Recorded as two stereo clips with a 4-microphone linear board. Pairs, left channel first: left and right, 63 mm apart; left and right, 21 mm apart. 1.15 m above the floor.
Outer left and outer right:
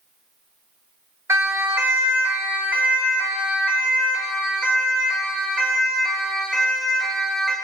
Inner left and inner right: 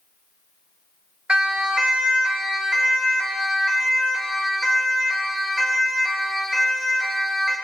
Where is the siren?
45° right (ahead or behind), 3 m; by 7.5 s 5° right (ahead or behind), 9 m.